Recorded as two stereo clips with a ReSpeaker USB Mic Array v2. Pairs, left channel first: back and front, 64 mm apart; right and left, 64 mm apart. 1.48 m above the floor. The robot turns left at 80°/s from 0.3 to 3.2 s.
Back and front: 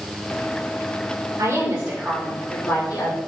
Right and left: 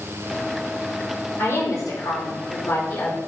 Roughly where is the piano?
I don't hear a piano.